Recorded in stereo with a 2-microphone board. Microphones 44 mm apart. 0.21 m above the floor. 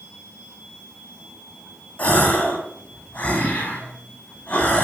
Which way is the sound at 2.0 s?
30° left (ahead or behind).